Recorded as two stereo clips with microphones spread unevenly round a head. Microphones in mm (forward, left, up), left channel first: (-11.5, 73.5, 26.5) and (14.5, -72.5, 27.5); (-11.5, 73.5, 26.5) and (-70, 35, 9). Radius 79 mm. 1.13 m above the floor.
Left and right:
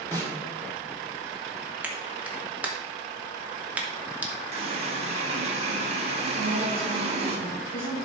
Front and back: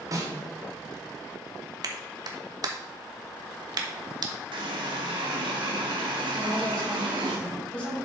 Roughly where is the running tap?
Behind right.